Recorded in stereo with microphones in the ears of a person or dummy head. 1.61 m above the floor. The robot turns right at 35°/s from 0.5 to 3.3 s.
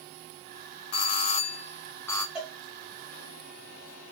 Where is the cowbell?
5° right (ahead or behind), 0.8 m; by 2.6 s 10° right (ahead or behind), 0.8 m.